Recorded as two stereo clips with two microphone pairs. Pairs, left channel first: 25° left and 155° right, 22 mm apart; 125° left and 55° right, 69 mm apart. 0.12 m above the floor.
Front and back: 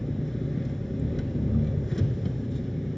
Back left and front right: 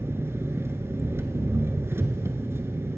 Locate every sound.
0.0 s an engine running: 35° right, 0.8 m